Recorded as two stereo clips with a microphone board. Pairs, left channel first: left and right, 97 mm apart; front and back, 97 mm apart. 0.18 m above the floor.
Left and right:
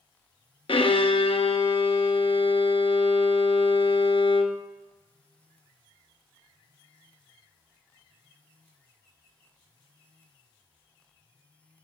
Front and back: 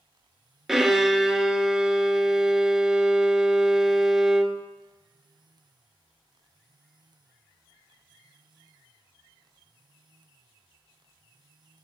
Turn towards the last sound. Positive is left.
turn(degrees=95)